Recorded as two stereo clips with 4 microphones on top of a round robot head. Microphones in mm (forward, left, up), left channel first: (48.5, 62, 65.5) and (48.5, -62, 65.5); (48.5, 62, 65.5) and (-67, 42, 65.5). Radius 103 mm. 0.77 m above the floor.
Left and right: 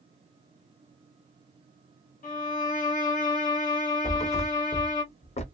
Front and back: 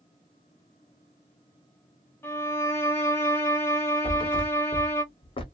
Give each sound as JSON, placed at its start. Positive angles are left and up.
{"t": 2.2, "sound": "a violin", "azimuth_deg": 80, "distance_m": 0.9}
{"t": 4.0, "sound": "a thud", "azimuth_deg": 50, "distance_m": 0.9}